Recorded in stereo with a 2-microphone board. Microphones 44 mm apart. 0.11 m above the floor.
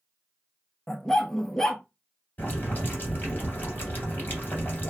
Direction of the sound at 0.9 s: 5° left (ahead or behind).